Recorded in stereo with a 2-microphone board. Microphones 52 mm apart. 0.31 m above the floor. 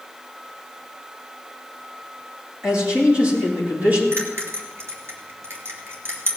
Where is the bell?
55° right (ahead or behind), 3 m.